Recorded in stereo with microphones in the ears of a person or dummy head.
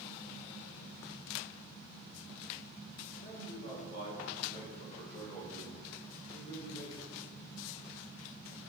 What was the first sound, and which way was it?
A man speaking, 60° left (ahead or behind).